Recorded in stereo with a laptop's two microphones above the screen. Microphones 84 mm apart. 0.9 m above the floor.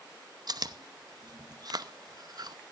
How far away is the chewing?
About 0.8 m.